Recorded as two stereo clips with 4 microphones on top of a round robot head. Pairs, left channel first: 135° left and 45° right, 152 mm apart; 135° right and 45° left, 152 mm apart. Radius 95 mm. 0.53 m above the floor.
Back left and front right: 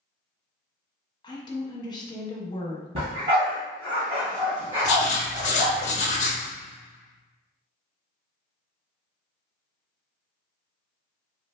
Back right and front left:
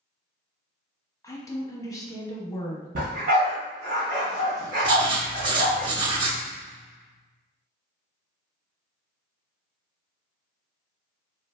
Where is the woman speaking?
170° left, 1.0 m.